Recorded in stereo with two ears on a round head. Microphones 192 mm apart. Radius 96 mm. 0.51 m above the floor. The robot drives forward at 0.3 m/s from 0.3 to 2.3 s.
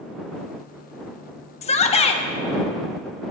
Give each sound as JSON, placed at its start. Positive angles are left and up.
{"t": 1.6, "sound": "a shout", "side_deg": 30, "distance_m": 0.9}